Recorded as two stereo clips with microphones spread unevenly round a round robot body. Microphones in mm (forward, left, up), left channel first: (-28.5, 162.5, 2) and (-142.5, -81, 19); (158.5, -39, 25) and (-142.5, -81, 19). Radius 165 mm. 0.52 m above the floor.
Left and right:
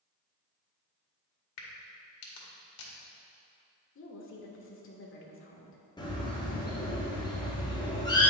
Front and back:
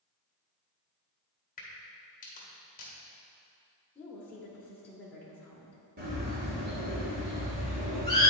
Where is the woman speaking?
90° left, 1.1 m.